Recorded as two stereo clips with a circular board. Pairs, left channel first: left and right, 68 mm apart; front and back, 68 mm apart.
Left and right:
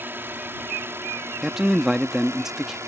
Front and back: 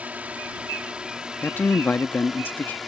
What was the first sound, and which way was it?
A drone, 125° right.